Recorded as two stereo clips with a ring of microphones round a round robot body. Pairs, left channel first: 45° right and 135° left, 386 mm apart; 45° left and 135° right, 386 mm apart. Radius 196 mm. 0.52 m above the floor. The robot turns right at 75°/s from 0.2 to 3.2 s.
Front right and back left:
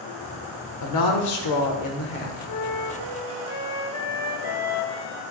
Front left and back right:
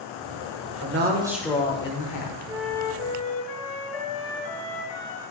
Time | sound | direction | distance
0.8 | a woman speaking | 90° right | 1.7 m
2.5 | a flute | 60° right | 1.4 m